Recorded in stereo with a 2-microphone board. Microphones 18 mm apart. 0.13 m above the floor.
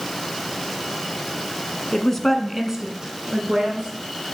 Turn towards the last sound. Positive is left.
turn(degrees=-55)  # may be behind; listen again after turning